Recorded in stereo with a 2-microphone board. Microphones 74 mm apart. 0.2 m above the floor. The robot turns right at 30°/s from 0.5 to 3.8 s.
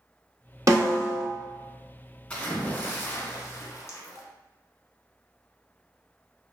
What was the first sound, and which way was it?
A snare drum, 45° right (ahead or behind).